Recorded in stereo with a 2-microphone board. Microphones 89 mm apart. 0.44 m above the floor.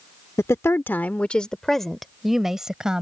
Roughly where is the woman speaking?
Left.